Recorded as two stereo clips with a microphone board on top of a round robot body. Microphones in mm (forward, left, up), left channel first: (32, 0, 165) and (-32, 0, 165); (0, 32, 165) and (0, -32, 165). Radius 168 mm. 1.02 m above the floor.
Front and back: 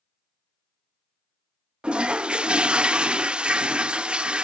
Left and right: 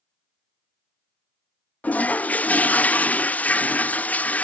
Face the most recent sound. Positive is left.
turn(degrees=125)